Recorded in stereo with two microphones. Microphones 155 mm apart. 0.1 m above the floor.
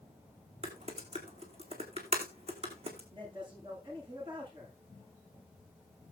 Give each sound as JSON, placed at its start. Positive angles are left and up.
{"t": 0.6, "sound": "typing on a keyboard", "side_deg": -40, "distance_m": 2.5}
{"t": 3.1, "sound": "a man speaking", "side_deg": -30, "distance_m": 8.5}